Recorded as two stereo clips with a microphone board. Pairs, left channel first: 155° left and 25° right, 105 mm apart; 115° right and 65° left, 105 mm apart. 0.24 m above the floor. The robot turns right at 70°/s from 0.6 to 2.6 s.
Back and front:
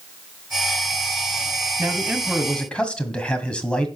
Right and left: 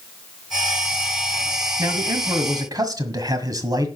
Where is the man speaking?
30° left, 1.6 m; by 3.9 s 85° left, 1.6 m.